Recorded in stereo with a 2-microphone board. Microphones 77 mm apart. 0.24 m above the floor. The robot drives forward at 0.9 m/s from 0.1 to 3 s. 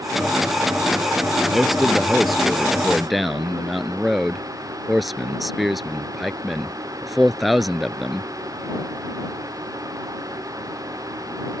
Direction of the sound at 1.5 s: Centre (ahead or behind).